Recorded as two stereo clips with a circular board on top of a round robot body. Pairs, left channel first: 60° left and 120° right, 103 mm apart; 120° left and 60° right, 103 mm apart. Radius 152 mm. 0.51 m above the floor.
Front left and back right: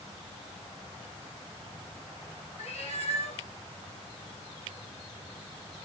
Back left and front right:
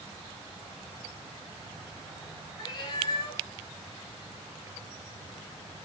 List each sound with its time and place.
2.6 s a cat meowing: 70° left, 3.5 m